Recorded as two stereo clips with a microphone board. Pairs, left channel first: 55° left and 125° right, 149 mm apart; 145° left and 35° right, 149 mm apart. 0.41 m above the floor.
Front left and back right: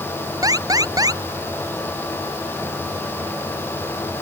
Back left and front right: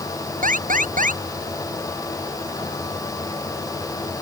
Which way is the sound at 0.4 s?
60° right.